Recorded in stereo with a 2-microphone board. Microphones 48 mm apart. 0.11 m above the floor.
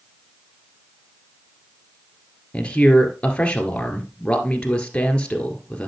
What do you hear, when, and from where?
2.5 s a man speaking: 20° left (ahead or behind), 2.0 m